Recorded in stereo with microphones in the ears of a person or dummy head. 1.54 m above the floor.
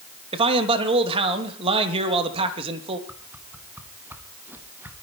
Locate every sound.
0.3 s a man speaking: 35° right (ahead or behind), 3 m
3.1 s a whoosh: 5° right (ahead or behind), 1.4 m